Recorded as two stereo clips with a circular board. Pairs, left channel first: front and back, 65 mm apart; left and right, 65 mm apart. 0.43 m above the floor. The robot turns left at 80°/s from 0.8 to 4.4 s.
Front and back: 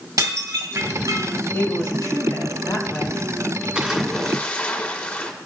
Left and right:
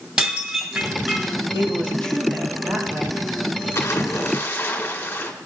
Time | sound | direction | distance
0.2 | dishes clattering | 170° right | 1.9 m
1.5 | a woman speaking | 60° left | 3.5 m
3.8 | a splash | 115° left | 1.7 m